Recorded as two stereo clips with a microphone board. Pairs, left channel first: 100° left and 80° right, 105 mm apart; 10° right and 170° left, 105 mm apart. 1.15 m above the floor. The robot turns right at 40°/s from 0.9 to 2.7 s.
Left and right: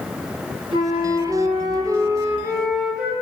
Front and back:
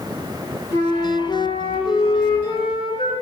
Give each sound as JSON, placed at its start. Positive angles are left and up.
{"t": 0.7, "sound": "a flute", "azimuth_deg": -70, "distance_m": 9.5}